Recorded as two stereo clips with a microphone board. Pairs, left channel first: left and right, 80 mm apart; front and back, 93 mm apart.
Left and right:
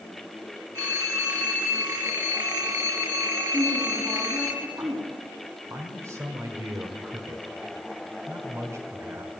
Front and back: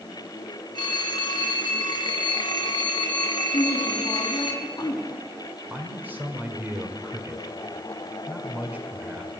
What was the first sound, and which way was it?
A phone ringing, 40° right.